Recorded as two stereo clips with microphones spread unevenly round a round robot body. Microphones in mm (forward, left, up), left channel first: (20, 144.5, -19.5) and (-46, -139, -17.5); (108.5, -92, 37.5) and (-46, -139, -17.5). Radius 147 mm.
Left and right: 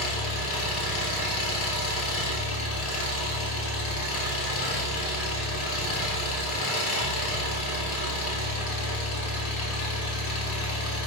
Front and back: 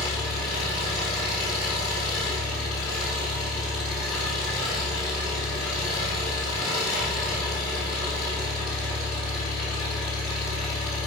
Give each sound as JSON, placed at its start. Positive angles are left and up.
{"t": 0.0, "sound": "an engine running", "azimuth_deg": 70, "distance_m": 2.5}